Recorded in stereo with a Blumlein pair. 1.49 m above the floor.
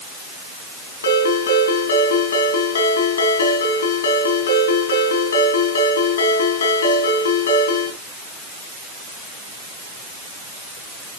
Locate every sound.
1.0 s a ringtone: 70° left, 5 m